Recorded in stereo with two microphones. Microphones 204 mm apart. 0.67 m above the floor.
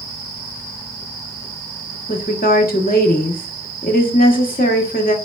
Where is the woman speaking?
45° left (ahead or behind), 1.0 m.